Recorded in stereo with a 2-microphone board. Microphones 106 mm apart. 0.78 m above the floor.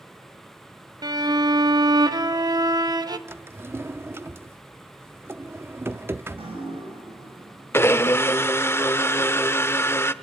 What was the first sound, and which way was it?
A violin, 40° right (ahead or behind).